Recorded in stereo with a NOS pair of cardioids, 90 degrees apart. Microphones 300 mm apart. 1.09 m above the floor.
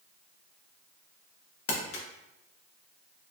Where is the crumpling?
50° left, 0.7 m.